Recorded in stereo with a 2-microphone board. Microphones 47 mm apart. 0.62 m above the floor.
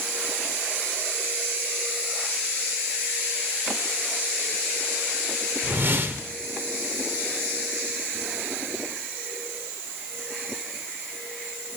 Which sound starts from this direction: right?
A whoosh, at 5.6 s.